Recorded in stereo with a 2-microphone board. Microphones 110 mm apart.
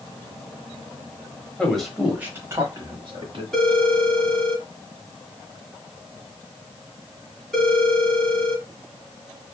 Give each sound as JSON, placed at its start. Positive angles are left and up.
{"t": 1.6, "sound": "a man speaking", "side_deg": 10, "distance_m": 1.1}
{"t": 3.5, "sound": "a phone ringing", "side_deg": 5, "distance_m": 1.4}